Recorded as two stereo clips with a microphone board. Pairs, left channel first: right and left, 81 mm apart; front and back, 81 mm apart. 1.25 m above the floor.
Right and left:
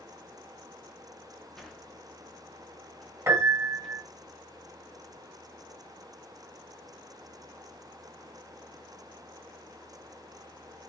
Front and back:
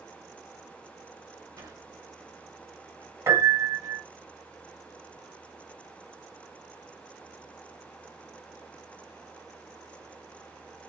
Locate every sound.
1.6 s a sliding door: 175° right, 0.9 m
3.3 s a piano: 135° left, 1.5 m